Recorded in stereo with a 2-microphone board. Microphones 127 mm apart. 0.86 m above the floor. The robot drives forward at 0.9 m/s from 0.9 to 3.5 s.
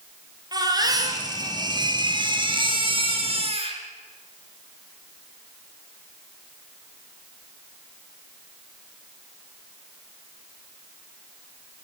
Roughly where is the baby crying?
Right.